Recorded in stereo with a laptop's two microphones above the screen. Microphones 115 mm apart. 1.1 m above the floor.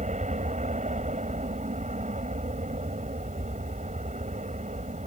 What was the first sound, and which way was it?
An aircraft, 75° right (ahead or behind).